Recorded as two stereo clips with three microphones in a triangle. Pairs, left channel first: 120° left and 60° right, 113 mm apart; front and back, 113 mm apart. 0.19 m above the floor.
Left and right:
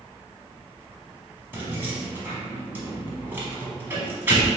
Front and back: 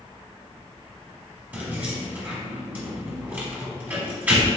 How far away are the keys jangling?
About 1.0 m.